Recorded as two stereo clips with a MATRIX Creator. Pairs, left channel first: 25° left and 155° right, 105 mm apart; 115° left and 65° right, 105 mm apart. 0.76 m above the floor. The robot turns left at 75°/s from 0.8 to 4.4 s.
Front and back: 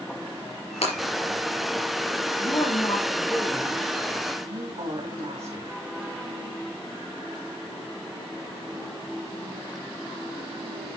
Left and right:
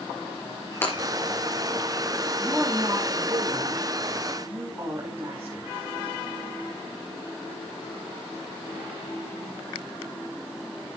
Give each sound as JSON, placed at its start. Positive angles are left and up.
{"t": 0.8, "sound": "breaking glass", "azimuth_deg": 45, "distance_m": 5.0}
{"t": 2.4, "sound": "a woman speaking", "azimuth_deg": 20, "distance_m": 3.0}